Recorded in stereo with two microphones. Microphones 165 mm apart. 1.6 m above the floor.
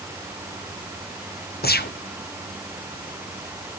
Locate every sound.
1.6 s a gunshot: 65° left (ahead or behind), 0.9 m